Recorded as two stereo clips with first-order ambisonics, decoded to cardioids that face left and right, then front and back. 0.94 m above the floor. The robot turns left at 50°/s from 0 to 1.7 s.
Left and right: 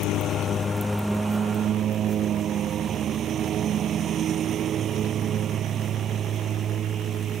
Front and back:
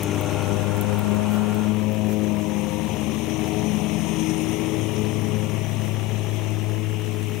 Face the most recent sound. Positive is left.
turn(degrees=-30)